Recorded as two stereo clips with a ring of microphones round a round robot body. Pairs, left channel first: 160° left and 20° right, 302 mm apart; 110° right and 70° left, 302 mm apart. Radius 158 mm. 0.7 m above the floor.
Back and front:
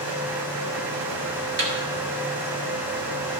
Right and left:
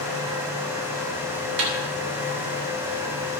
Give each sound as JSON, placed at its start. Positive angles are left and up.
{"t": 1.6, "sound": "a snare drum", "azimuth_deg": 30, "distance_m": 2.5}